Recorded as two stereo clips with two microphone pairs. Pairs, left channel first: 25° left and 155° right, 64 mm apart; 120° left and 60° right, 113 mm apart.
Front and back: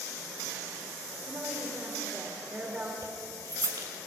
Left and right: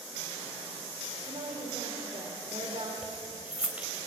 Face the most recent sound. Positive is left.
turn(degrees=-140)